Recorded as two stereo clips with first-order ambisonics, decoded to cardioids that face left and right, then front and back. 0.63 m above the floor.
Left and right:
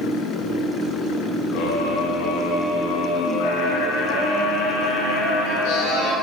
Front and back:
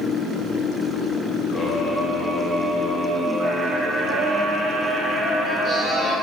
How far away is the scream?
About 5 m.